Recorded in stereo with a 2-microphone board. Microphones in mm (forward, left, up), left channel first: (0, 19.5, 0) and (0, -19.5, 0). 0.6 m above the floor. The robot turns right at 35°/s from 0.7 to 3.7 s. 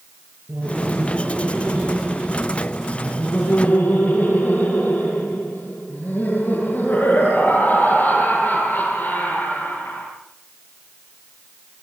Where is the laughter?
50° right, 9.5 m; by 10.1 s 55° left, 9.5 m.